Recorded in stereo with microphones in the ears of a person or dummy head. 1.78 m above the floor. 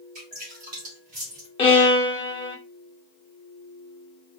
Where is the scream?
I don't hear a scream.